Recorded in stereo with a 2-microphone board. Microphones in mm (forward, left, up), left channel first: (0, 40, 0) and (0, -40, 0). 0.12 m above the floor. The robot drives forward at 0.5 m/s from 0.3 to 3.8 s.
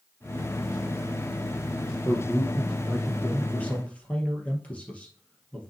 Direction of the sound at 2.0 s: 20° left (ahead or behind).